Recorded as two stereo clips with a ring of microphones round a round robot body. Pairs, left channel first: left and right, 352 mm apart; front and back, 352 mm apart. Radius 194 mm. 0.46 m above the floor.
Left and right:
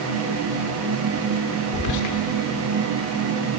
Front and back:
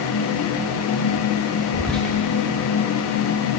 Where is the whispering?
90° left, 1.2 m.